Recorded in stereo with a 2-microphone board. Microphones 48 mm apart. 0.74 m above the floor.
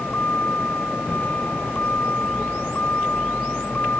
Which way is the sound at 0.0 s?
35° left (ahead or behind).